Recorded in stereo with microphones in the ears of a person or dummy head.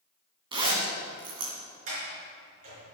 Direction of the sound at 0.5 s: 35° right (ahead or behind).